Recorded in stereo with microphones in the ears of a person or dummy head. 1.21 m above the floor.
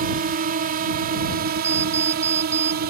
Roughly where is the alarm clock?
Centre.